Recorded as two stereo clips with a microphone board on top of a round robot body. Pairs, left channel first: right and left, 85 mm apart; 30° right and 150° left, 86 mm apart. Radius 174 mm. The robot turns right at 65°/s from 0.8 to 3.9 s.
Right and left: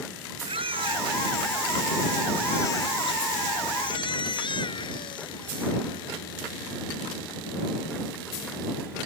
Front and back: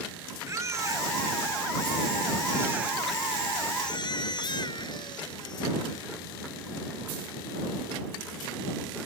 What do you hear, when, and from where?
0.5 s a baby crying: 95° left; by 6.1 s 65° right